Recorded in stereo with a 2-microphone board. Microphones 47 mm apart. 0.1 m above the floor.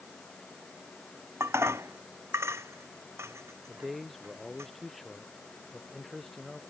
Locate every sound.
1.4 s dishes clattering: 75° right (ahead or behind)
3.7 s a man speaking: 5° left (ahead or behind)